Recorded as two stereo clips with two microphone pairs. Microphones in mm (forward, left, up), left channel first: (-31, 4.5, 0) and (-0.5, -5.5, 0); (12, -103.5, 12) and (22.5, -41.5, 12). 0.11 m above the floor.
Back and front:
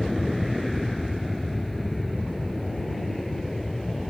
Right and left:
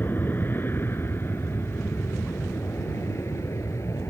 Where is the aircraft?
110° right; by 4.1 s 115° right.